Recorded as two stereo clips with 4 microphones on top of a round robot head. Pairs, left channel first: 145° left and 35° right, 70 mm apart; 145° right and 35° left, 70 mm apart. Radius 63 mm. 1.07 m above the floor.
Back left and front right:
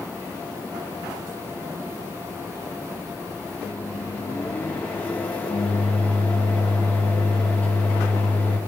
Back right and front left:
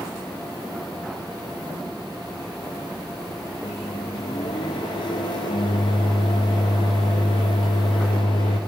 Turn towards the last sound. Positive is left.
turn(degrees=-145)